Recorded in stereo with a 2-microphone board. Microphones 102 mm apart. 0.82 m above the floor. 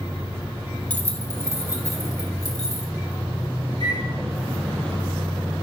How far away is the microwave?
About 3.5 m.